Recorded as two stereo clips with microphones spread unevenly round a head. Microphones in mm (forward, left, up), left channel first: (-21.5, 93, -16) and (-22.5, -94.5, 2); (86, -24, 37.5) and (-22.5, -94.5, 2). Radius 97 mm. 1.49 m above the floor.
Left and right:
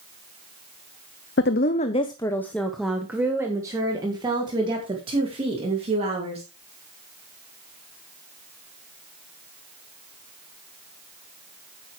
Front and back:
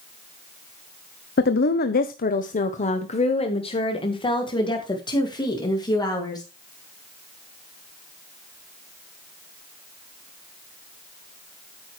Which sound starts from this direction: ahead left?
A woman speaking, at 1.4 s.